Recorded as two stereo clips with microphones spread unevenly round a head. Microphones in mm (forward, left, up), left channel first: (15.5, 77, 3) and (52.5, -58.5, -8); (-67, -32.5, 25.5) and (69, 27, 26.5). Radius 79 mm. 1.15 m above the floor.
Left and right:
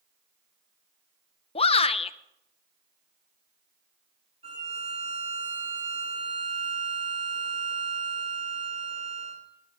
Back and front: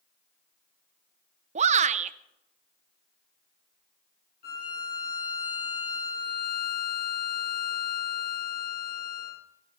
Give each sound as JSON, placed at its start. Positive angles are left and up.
{"t": 1.6, "sound": "a shout", "azimuth_deg": 60, "distance_m": 0.8}
{"t": 4.4, "sound": "a violin", "azimuth_deg": -130, "distance_m": 4.0}